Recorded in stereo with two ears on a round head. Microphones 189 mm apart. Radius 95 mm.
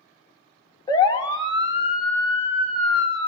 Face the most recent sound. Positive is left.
turn(degrees=30)  # may be behind; listen again after turning